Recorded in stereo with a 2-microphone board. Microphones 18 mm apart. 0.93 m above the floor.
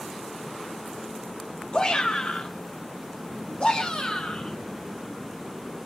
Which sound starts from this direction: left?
A shout, at 1.7 s.